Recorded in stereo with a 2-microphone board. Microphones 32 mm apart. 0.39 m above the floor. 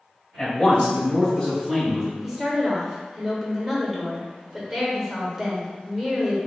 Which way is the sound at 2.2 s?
10° right (ahead or behind).